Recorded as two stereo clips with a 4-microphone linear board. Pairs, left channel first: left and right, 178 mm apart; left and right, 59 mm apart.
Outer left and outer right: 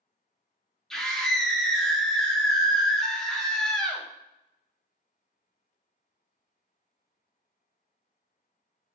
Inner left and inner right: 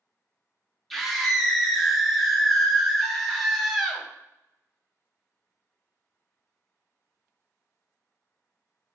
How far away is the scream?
About 0.5 m.